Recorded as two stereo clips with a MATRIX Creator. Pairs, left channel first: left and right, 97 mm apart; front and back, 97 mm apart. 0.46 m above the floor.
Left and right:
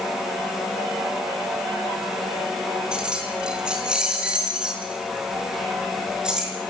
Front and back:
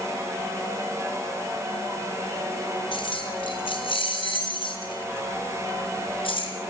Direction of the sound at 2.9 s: 10° right.